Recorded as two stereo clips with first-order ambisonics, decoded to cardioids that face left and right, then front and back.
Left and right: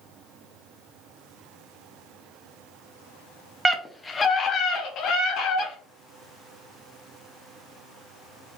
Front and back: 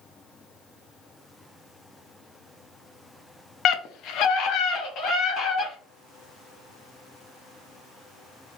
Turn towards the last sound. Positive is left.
turn(degrees=50)